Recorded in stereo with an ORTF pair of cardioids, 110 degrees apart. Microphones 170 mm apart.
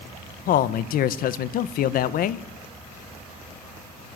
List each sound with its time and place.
0.5 s a man speaking: 65° left, 1.4 m